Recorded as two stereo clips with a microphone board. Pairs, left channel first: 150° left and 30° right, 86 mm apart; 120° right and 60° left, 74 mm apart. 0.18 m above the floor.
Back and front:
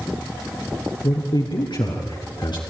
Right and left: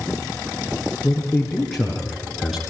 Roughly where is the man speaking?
Behind left.